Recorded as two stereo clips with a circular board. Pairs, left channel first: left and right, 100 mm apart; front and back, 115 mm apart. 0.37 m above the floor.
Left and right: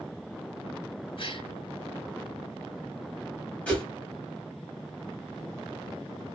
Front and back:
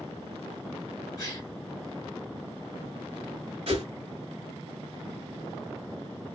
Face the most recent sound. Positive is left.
turn(degrees=165)